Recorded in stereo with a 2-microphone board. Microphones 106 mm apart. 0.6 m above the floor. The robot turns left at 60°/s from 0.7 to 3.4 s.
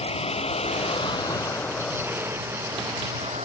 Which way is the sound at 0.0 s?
70° left (ahead or behind).